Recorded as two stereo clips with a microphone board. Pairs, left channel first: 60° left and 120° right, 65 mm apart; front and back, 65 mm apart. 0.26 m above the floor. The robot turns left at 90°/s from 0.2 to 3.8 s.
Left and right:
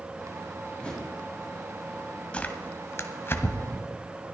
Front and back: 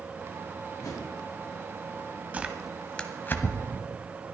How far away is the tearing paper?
About 1.3 m.